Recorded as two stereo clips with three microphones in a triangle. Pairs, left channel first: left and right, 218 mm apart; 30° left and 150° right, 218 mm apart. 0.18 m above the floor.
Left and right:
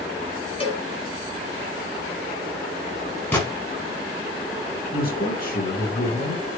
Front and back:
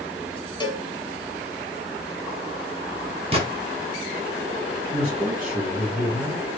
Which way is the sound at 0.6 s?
75° left.